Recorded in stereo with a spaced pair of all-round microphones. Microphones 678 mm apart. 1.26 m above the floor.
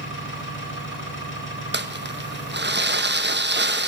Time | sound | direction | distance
0.0 | an engine running | 15° left (ahead or behind) | 6.5 m
1.7 | crumpling | 15° right (ahead or behind) | 0.9 m